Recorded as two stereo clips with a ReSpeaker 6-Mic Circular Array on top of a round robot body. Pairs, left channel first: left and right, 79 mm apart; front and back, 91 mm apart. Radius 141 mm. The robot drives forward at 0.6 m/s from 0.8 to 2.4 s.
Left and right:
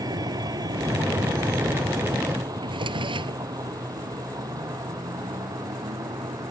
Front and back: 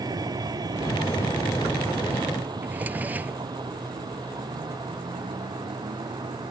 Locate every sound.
0.0 s a vehicle: 130° right; by 6.5 s 135° right
2.6 s a drawer: 105° right